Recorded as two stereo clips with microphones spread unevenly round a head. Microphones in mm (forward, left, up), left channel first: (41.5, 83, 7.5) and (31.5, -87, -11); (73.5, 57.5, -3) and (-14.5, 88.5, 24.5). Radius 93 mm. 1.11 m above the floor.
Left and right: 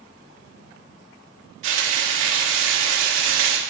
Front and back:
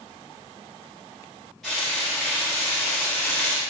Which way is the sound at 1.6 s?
105° right.